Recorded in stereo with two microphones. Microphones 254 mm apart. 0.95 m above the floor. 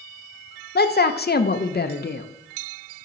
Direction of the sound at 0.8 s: 40° left (ahead or behind).